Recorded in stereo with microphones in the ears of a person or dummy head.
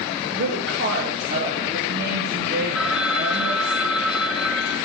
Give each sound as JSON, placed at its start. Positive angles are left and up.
{"t": 0.3, "sound": "a woman speaking", "side_deg": -60, "distance_m": 2.5}
{"t": 2.8, "sound": "a phone ringing", "side_deg": -5, "distance_m": 0.8}